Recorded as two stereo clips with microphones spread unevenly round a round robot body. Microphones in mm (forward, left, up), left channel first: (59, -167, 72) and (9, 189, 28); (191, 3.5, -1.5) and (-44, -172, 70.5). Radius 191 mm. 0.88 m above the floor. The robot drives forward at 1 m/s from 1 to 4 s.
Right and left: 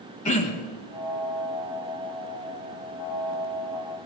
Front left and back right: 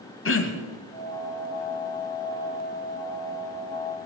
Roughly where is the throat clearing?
Ahead.